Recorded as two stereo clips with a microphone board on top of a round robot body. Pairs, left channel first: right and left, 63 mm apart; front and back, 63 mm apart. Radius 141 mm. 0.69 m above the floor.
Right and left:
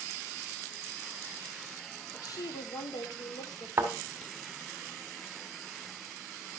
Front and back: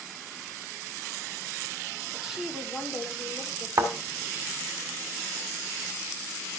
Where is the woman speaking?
100° right, 1.9 m; by 3.7 s 95° right, 3 m.